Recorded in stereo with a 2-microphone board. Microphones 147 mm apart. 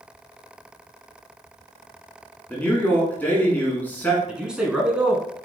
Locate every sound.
2.5 s a man speaking: 10° left (ahead or behind), 1.6 m
4.3 s a man speaking: 5° right (ahead or behind), 1.1 m